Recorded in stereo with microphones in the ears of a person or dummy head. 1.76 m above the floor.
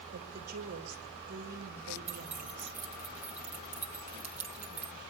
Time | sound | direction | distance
0.1 | a woman speaking | 45° right (ahead or behind) | 2.5 m
2.1 | keys jangling | 5° right (ahead or behind) | 1.0 m